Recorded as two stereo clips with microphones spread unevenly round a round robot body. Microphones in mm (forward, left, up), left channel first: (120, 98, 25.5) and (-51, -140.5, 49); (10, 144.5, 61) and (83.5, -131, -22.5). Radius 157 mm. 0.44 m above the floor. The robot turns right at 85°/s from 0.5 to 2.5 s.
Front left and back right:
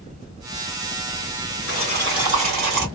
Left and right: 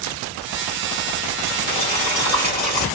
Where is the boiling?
105° left, 2 m; by 2.9 s 175° left, 2 m.